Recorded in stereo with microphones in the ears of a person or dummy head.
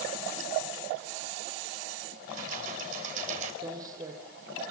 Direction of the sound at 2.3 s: 50° right (ahead or behind).